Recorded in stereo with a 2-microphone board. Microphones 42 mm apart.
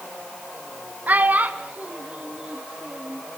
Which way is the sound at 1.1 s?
40° right (ahead or behind).